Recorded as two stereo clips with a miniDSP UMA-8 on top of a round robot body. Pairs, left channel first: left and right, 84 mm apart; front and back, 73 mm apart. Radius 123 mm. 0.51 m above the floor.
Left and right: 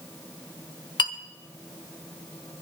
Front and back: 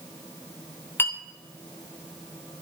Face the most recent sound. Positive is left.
turn(degrees=60)